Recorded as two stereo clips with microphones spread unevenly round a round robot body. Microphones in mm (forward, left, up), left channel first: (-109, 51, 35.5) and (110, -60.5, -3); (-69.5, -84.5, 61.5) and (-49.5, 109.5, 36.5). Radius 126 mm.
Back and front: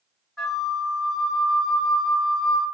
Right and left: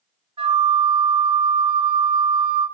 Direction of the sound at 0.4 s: 55° left.